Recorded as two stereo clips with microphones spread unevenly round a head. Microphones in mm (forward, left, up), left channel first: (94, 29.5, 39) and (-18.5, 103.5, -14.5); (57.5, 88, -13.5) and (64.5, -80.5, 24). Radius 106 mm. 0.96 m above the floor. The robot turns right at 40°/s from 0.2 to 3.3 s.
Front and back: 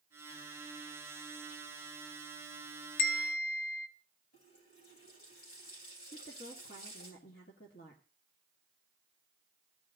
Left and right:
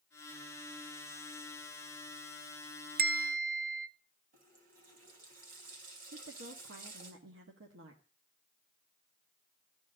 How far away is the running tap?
About 4 m.